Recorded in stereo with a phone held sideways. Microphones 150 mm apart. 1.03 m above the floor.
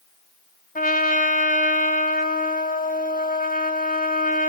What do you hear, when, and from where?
0.8 s a trumpet: 70° left (ahead or behind), 2 m